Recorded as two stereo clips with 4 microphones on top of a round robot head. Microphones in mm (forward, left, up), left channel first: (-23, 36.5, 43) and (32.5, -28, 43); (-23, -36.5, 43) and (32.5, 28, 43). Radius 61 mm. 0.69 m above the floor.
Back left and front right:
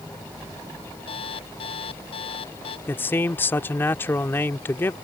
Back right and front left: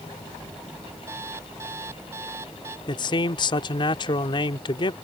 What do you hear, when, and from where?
1.1 s an alarm clock: 110° left
2.9 s a man speaking: 160° right